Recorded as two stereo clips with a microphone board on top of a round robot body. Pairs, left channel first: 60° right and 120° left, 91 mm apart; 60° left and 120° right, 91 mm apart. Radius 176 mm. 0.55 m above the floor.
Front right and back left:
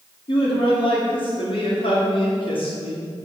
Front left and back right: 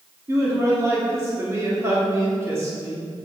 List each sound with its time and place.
0.3 s a man speaking: 60° right, 2 m